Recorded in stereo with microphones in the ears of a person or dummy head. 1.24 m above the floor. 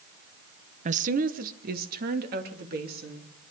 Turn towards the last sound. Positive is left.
turn(degrees=-55)  # may be behind; listen again after turning